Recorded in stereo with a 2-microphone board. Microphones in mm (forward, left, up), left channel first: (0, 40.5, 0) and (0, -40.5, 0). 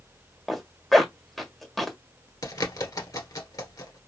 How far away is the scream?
No scream in this recording.